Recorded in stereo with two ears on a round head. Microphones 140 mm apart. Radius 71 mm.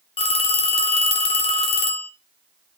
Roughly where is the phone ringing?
Left.